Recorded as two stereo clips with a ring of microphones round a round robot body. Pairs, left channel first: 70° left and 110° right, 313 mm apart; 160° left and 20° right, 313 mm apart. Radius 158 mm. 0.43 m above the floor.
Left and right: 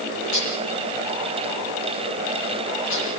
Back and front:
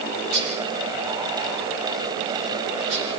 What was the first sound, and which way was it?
Dishes clattering, 15° left.